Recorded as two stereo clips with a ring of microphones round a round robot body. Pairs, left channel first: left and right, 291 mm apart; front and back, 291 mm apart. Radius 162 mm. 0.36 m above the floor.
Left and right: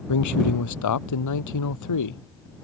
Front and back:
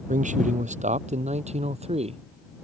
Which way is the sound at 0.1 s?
115° left.